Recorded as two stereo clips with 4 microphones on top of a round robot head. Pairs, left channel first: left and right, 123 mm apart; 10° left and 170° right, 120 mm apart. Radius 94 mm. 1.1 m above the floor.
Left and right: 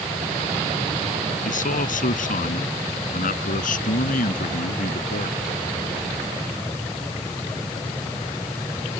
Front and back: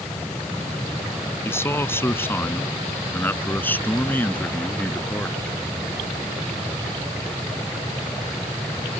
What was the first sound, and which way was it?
A man speaking, 80° left.